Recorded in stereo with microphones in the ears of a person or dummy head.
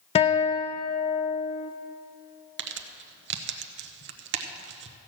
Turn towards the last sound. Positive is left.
turn(degrees=-60)  # may be behind; listen again after turning